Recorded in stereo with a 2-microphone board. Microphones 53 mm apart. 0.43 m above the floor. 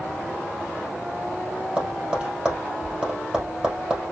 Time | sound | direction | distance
1.8 | tapping | 15° right (ahead or behind) | 3.5 m